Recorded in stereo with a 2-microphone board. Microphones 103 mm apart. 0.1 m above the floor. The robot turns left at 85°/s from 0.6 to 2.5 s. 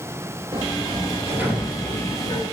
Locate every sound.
0.5 s a sliding door: 85° right, 1.9 m; by 2.4 s 120° left, 1.9 m